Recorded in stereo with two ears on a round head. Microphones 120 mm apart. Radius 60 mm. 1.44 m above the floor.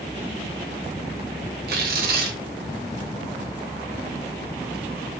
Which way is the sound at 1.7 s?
80° right.